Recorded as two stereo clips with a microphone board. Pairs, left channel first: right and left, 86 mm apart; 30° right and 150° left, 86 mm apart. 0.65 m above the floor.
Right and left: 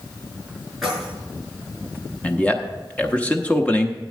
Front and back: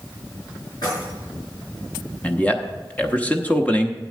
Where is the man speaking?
55° right, 0.8 m.